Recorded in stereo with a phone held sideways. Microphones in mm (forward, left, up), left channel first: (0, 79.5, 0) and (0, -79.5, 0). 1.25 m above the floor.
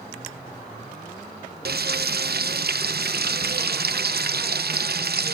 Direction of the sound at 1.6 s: 80° right.